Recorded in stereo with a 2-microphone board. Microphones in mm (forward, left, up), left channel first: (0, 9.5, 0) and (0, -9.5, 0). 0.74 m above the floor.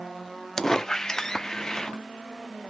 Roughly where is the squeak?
Left.